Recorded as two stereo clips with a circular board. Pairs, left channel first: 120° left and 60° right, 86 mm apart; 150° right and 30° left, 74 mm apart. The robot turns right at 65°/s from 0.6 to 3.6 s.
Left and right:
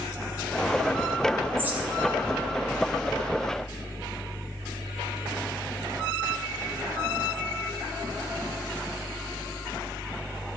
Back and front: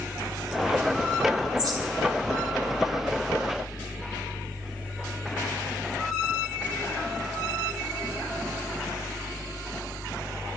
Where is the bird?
Straight ahead, 2 m; by 1.8 s 20° left, 2 m.